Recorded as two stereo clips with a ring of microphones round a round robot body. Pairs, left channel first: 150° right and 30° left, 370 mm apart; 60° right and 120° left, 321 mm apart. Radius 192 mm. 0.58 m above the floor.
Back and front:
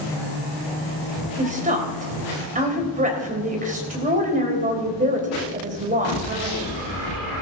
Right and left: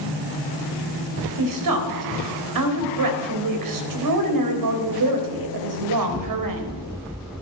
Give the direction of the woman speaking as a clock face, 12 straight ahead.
9 o'clock.